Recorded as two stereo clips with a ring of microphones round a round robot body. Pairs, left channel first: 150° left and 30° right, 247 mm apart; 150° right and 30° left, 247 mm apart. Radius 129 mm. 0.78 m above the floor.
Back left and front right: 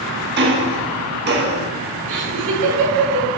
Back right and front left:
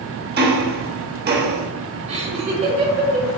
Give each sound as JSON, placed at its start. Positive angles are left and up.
{"t": 0.4, "sound": "ticking", "azimuth_deg": -5, "distance_m": 1.2}
{"t": 2.1, "sound": "laughter", "azimuth_deg": -35, "distance_m": 3.0}